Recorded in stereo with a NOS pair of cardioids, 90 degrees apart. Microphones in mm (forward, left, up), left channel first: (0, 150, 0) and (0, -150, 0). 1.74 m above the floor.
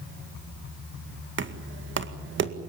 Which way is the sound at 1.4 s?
40° right.